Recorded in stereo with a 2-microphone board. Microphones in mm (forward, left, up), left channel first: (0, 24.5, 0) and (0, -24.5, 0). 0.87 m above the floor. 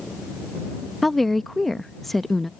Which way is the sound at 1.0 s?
5° left (ahead or behind).